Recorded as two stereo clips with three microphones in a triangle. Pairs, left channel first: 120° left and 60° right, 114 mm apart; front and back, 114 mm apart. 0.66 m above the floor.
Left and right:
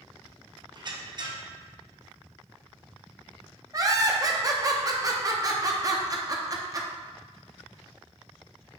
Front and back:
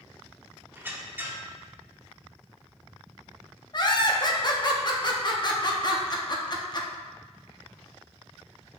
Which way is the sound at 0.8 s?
105° right.